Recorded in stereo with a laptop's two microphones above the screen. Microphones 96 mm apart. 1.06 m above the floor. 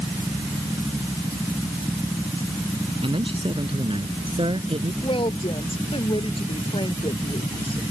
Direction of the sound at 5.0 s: 65° left (ahead or behind).